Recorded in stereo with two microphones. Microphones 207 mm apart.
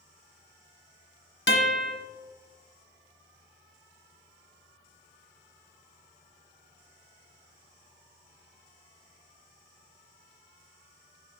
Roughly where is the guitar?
Left.